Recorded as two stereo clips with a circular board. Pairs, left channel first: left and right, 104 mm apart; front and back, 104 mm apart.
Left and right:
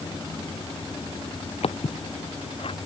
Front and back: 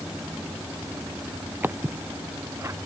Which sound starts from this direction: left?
Footsteps, at 1.6 s.